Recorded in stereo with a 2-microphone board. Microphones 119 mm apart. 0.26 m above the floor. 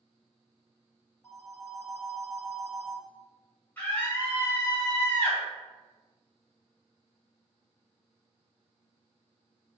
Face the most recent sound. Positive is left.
turn(degrees=20)  # may be behind; listen again after turning